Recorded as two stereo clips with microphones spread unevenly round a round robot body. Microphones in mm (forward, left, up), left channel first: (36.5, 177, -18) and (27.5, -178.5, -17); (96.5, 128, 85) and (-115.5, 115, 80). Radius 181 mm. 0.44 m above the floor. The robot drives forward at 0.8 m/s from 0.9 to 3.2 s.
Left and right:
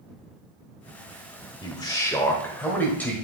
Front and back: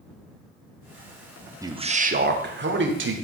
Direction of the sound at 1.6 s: 140° left.